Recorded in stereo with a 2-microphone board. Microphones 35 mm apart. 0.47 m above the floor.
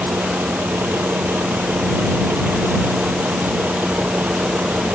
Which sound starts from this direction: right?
A vehicle, at 0.0 s.